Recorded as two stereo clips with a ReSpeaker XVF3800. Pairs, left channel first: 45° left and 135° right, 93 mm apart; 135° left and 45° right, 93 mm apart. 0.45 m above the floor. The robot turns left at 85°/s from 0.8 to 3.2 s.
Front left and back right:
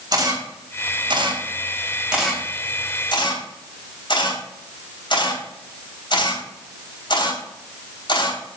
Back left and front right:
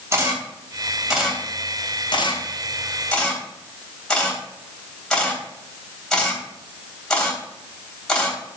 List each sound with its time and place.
0.1 s a camera shutter: 100° right, 3 m; by 8.4 s 55° left, 3 m